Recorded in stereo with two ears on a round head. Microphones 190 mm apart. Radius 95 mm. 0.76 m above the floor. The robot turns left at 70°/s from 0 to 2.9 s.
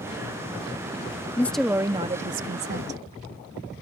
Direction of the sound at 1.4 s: 15° left.